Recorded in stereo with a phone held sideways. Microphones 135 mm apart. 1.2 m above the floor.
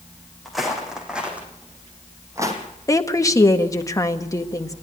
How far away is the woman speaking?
About 1.5 m.